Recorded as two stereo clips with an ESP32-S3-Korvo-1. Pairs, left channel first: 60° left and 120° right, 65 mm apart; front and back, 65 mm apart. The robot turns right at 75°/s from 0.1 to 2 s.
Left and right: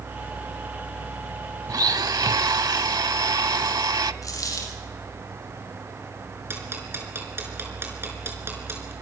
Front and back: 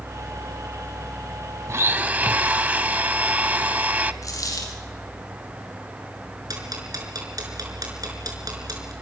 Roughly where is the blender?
Behind right.